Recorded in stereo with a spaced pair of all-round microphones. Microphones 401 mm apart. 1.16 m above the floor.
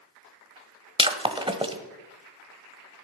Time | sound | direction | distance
1.0 | breaking glass | 15° right (ahead or behind) | 1.1 m